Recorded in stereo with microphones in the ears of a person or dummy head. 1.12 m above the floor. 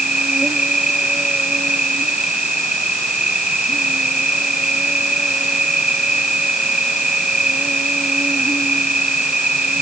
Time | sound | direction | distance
0.0 | an insect | 5° right (ahead or behind) | ?